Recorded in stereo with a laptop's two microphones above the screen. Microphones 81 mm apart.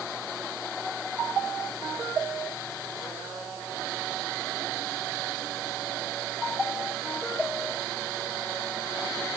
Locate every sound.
Only background noise.